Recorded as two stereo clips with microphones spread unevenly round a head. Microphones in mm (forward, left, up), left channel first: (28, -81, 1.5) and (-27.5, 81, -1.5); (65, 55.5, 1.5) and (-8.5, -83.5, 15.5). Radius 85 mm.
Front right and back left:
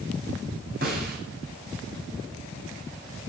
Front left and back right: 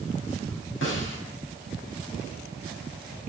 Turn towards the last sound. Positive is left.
turn(degrees=70)